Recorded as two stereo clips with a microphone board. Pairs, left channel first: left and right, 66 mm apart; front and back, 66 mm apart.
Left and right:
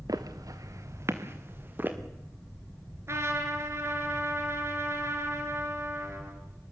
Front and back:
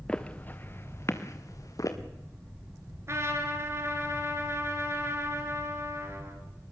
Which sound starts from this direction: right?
Footsteps, at 0.1 s.